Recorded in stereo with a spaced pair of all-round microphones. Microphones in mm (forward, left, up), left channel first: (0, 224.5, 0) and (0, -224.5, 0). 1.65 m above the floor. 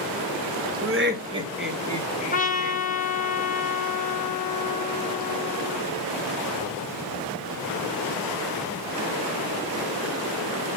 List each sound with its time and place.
0.8 s laughter: 35° right (ahead or behind), 0.7 m; by 2.8 s 30° left (ahead or behind), 1.2 m
2.3 s a trumpet: 20° left (ahead or behind), 0.8 m